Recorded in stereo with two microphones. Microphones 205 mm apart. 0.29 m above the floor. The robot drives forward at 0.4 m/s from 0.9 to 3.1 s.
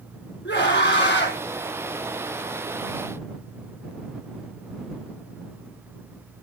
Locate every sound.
0.5 s a scream: 65° left (ahead or behind), 4 m; by 1.4 s 60° left (ahead or behind), 4.5 m